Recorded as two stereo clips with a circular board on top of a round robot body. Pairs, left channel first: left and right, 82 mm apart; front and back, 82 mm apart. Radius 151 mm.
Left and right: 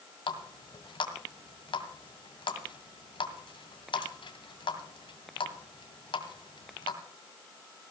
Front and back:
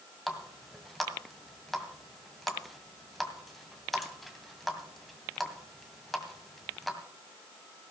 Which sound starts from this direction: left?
A running tap, at 0.3 s.